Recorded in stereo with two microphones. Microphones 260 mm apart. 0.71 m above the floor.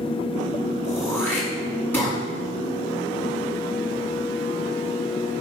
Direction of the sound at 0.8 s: 5° left (ahead or behind).